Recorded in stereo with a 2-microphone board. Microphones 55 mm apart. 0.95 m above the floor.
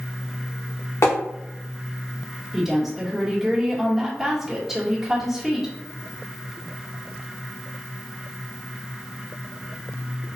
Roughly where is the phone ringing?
I don't hear a phone ringing.